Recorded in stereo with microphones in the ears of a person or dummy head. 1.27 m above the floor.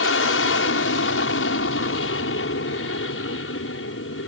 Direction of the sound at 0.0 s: 70° left (ahead or behind).